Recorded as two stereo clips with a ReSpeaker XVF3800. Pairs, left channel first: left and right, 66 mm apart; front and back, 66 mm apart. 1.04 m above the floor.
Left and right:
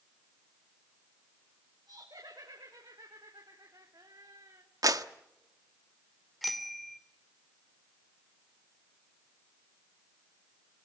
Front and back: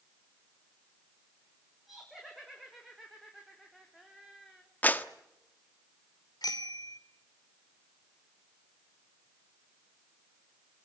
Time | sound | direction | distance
1.9 | laughter | 90° right | 4.5 m
4.8 | a clap | 65° right | 1.2 m
6.4 | a bicycle bell | straight ahead | 2.5 m